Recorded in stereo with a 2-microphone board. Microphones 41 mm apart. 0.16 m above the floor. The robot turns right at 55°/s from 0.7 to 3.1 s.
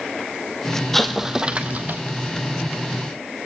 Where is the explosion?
175° left, 1.2 m; by 2.0 s 125° right, 1.2 m.